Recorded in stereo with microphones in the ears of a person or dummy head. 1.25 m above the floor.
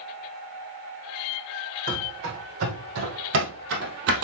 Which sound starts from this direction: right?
Running footsteps, at 1.9 s.